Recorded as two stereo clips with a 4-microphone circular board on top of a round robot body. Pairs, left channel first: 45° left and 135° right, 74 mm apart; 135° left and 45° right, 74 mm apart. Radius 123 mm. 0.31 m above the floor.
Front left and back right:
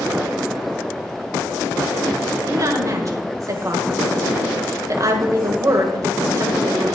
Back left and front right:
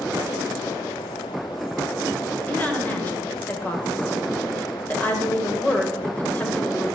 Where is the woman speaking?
160° right, 1.7 m.